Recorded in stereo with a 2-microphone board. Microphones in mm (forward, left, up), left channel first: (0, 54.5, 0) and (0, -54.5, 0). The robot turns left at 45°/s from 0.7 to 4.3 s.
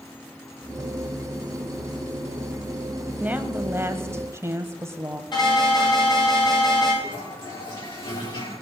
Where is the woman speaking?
15° right (ahead or behind), 1.0 m; by 5.2 s 25° right (ahead or behind), 1.0 m.